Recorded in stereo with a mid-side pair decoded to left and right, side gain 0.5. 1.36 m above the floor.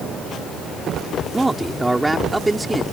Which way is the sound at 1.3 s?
15° right.